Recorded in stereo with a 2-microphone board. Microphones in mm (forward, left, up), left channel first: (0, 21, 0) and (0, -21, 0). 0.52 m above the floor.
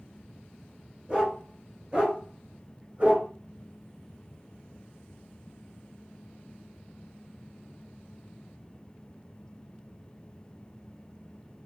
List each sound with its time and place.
1.1 s a dog barking: 20° right (ahead or behind), 3 m; by 3.3 s 35° right (ahead or behind), 1.6 m